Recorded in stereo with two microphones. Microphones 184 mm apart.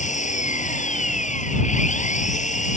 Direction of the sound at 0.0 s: 40° left (ahead or behind).